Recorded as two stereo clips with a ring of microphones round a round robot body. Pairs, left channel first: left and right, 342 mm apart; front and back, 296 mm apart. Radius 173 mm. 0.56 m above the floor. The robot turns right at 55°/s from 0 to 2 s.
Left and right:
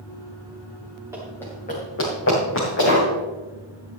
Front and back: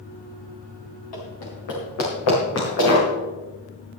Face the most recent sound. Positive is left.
turn(degrees=30)